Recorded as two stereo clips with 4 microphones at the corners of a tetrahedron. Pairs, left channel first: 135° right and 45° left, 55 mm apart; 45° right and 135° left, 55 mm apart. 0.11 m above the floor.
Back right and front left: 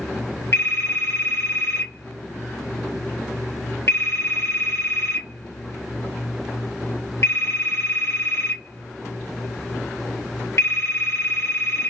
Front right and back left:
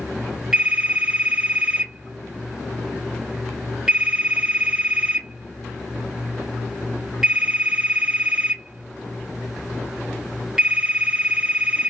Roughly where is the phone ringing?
Behind right.